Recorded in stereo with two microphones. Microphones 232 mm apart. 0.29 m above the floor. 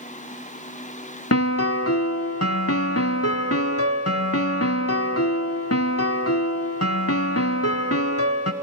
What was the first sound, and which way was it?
A piano, 75° left (ahead or behind).